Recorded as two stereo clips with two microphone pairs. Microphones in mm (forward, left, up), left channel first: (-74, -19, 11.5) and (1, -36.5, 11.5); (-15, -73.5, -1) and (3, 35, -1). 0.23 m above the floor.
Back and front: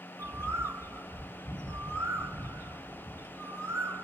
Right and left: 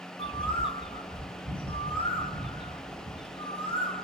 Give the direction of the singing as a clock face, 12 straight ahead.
No singing in this recording.